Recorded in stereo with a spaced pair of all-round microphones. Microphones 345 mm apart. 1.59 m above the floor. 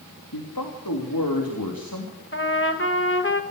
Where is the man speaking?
80° left, 3 m.